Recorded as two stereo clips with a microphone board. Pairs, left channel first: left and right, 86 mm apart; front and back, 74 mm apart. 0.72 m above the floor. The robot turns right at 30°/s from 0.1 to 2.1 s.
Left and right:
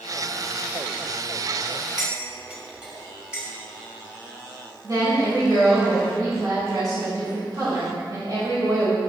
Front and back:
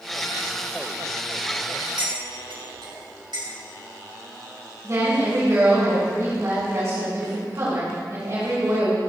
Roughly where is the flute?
No flute in this recording.